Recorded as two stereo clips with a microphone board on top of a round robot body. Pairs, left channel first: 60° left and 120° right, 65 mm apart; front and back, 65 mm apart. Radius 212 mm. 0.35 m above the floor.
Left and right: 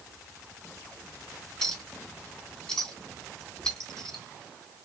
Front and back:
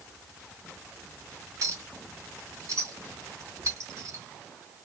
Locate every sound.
1.6 s a clink: 140° left, 4 m